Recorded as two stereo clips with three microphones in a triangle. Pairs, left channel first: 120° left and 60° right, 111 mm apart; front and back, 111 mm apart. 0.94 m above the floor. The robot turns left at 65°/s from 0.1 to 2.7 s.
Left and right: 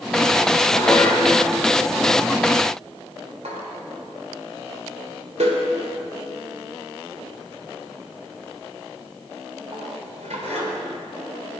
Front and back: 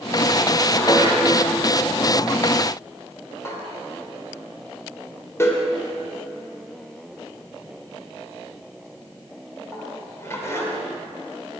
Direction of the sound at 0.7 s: 65° left.